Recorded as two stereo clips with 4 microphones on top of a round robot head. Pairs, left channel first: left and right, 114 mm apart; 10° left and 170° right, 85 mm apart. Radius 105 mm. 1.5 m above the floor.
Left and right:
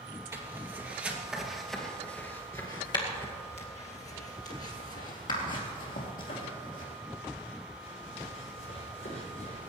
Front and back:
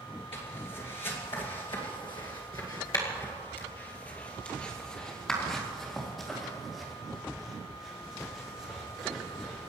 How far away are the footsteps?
About 3 m.